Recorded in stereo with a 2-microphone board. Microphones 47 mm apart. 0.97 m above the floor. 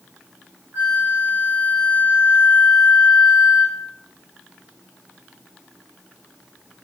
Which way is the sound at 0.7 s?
45° right (ahead or behind).